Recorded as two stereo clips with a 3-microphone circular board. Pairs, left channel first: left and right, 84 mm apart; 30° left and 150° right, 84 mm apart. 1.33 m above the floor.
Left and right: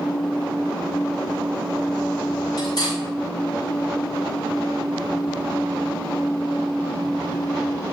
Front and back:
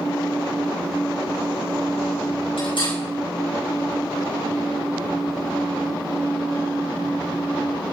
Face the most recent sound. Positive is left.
turn(degrees=50)